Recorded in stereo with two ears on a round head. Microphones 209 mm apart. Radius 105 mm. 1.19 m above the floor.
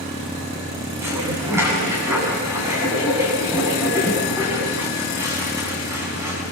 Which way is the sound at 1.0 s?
10° right (ahead or behind).